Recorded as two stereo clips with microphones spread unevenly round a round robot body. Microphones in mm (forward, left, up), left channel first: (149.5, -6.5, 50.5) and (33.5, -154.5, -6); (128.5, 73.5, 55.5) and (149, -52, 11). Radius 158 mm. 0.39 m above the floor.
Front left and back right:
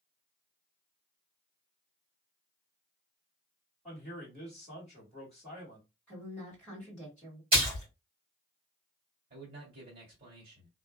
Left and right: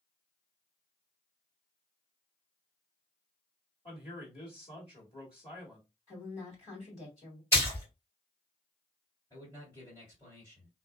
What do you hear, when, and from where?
3.9 s a man speaking: 160° left, 1.5 m
6.1 s a woman speaking: 150° left, 1.5 m
7.5 s a splash: 170° right, 1.8 m
9.3 s a man speaking: 175° right, 1.7 m